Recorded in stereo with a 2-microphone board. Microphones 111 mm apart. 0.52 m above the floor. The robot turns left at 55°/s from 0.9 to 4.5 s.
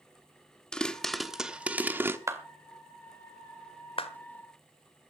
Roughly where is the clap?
Right.